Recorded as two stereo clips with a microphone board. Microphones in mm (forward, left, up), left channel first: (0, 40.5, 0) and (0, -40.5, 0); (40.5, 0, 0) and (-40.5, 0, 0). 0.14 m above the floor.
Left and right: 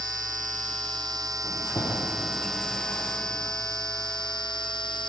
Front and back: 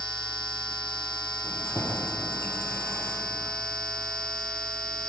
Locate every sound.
1.4 s keys jangling: 55° left, 3.5 m